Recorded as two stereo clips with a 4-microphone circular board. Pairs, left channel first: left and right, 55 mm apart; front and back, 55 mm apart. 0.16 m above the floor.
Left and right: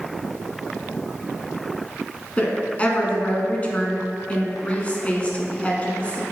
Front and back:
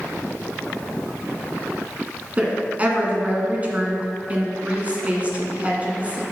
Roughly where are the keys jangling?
I don't hear keys jangling.